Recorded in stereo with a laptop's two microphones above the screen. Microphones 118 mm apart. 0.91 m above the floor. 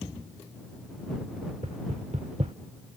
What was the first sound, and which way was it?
Knocking, 70° right (ahead or behind).